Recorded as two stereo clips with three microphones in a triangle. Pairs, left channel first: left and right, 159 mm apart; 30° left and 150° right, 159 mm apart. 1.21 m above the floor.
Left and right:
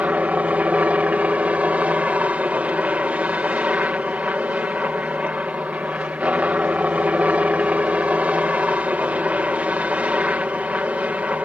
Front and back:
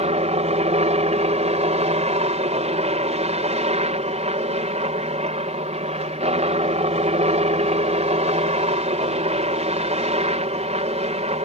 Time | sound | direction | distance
0.0 | a helicopter | 170° right | ?